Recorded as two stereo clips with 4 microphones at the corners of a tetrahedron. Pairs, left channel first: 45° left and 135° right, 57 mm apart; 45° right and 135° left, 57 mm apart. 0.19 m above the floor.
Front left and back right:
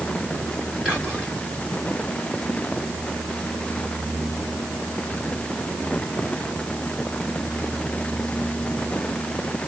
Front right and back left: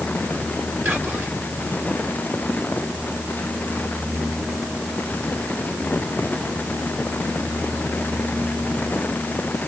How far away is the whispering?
About 2 m.